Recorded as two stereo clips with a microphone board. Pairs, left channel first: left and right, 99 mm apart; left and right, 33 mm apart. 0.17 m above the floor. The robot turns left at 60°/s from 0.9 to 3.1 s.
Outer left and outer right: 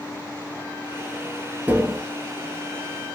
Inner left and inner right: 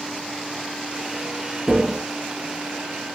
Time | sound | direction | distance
1.7 | tapping | 20° right (ahead or behind) | 0.6 m